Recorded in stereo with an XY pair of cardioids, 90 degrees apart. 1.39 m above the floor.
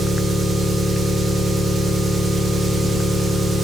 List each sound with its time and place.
0.0 s an engine running: 45° right, 2.5 m